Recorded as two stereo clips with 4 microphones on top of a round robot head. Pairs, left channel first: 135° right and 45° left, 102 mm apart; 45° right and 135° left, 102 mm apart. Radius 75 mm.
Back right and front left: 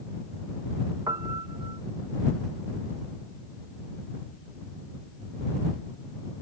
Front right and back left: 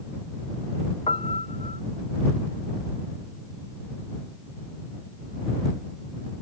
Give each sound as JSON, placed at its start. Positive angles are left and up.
{"t": 1.1, "sound": "a piano", "azimuth_deg": -15}